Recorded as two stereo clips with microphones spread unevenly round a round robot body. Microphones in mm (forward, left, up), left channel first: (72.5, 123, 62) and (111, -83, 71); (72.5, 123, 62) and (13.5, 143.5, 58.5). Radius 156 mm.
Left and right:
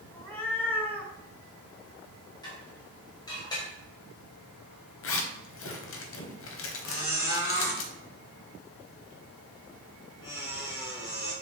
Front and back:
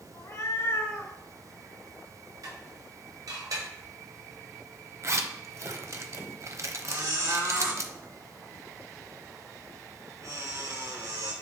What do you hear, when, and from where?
0.1 s a cat meowing: 20° left, 2 m
2.4 s dishes clattering: 170° left, 1.5 m
5.0 s a zipper: 120° left, 1.0 m
6.8 s a squeak: 135° left, 3.5 m